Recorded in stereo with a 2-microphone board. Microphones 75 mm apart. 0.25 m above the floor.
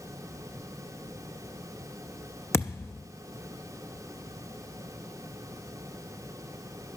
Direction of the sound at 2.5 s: 35° left (ahead or behind).